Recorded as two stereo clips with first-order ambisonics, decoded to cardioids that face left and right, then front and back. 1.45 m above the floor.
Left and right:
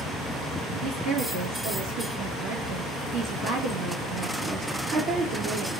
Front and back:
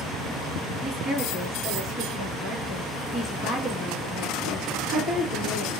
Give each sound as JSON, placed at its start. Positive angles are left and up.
{"t": 0.8, "sound": "a woman speaking", "azimuth_deg": -105, "distance_m": 2.0}